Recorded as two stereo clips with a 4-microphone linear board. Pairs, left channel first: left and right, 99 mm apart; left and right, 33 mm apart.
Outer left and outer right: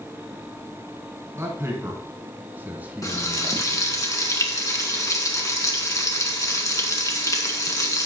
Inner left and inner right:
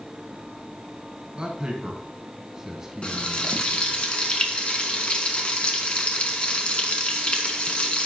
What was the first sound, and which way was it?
A man speaking, 30° right (ahead or behind).